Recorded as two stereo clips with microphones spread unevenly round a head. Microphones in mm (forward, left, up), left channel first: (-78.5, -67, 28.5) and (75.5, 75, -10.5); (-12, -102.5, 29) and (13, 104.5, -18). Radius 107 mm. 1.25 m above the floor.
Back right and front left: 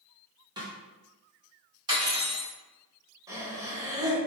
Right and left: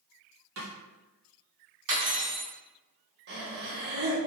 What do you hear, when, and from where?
0.6 s a snare drum: 115° left, 1.8 m
1.9 s cutlery clinking: 115° left, 2 m
3.3 s breathing: 115° left, 1.2 m